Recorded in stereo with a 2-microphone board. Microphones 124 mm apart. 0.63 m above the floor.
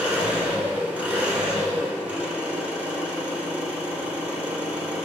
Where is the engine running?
10° right (ahead or behind), 1.1 m.